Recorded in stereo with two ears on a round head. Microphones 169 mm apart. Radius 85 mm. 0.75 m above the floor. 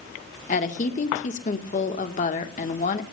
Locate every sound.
0.5 s a woman speaking: 40° left (ahead or behind), 1.8 m